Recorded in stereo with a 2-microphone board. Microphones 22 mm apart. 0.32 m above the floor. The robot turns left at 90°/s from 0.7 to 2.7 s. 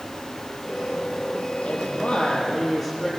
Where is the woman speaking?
95° left, 7.5 m; by 3.1 s straight ahead, 7.5 m.